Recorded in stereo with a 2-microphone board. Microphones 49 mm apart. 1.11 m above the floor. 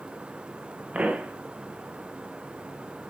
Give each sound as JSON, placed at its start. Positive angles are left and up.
{"t": 0.9, "sound": "a pop", "side_deg": -30, "distance_m": 1.1}